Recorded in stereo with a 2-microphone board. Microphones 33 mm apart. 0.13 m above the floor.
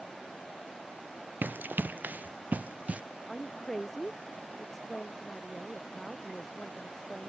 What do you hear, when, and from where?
1.4 s running footsteps: 85° right; by 3.0 s 45° right (ahead or behind)
3.3 s a woman speaking: 10° left (ahead or behind)